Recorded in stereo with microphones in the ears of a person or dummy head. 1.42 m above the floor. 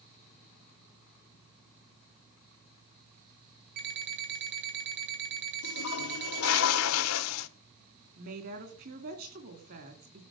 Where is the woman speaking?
55° right (ahead or behind), 2.5 m.